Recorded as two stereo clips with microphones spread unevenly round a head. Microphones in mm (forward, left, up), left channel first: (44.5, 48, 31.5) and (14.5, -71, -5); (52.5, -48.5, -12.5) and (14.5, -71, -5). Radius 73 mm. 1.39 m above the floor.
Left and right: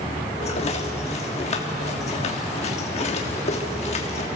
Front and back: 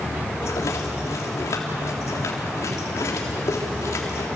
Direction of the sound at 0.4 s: 45° left.